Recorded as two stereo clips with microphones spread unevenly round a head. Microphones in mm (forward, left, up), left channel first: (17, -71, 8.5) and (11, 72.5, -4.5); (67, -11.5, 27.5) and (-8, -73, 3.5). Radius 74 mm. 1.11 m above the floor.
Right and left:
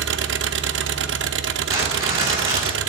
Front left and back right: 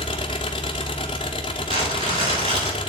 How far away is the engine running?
About 0.8 m.